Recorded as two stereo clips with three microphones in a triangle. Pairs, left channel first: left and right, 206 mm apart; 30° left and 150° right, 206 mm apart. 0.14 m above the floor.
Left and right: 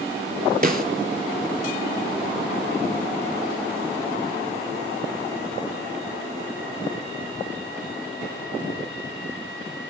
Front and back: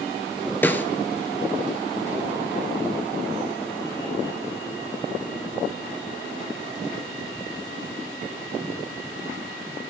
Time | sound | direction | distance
0.6 | a snare drum | 50° right | 0.5 m